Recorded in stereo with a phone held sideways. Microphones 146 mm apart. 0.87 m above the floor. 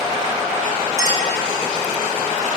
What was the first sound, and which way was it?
A clink, 25° right (ahead or behind).